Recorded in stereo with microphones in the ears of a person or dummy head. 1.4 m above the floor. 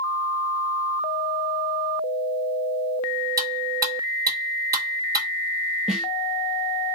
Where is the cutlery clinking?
15° right (ahead or behind), 1.4 m.